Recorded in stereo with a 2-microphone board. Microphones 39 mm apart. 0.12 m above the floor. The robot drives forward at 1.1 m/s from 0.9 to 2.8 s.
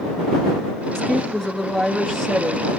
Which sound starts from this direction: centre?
A woman speaking, at 0.9 s.